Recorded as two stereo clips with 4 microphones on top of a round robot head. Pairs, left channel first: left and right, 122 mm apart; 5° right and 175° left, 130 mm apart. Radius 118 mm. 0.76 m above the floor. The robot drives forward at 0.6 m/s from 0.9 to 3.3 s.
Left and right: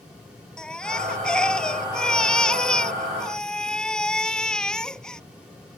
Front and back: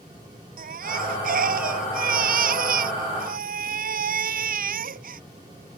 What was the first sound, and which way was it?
A baby crying, 175° left.